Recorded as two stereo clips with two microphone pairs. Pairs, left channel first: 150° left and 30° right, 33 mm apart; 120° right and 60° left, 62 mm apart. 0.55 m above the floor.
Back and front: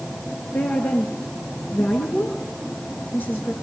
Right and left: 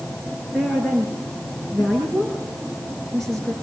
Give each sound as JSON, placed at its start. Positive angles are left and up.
{"t": 0.5, "sound": "a woman speaking", "azimuth_deg": 155, "distance_m": 7.5}